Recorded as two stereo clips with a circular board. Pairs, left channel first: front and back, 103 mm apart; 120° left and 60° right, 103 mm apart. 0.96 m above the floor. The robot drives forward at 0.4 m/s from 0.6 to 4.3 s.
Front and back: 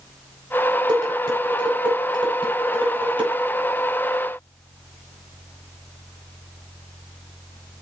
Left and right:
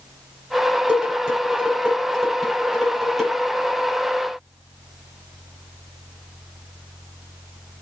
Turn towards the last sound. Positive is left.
turn(degrees=-150)